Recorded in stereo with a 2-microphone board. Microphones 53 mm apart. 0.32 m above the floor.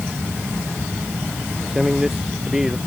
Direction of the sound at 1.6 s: 5° right (ahead or behind).